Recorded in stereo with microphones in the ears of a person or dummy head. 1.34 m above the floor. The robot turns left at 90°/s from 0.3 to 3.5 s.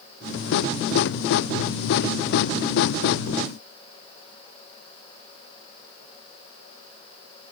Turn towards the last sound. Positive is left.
No sound to turn to.